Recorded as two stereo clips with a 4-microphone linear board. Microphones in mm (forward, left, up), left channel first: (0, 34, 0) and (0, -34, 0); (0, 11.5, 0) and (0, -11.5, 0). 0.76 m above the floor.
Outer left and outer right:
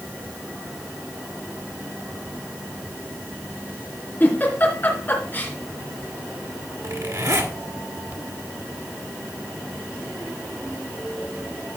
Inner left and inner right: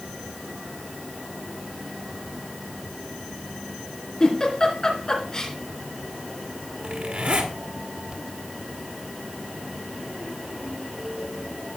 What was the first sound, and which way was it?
A giggle, 30° left (ahead or behind).